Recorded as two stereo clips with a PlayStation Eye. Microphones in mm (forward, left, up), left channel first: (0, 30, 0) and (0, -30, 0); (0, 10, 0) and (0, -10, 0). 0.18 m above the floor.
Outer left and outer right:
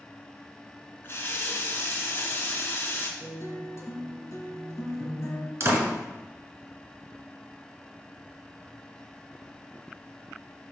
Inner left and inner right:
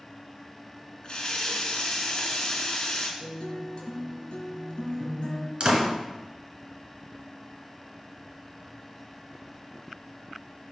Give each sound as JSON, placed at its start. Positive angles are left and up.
{"t": 1.0, "sound": "a running tap", "side_deg": 40, "distance_m": 1.3}
{"t": 3.2, "sound": "a guitar", "side_deg": 50, "distance_m": 1.8}
{"t": 5.6, "sound": "a door slam", "side_deg": -45, "distance_m": 1.8}